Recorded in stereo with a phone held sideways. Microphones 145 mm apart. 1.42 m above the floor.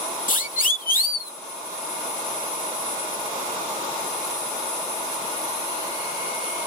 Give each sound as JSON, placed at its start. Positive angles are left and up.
{"t": 0.3, "sound": "a siren", "side_deg": 65}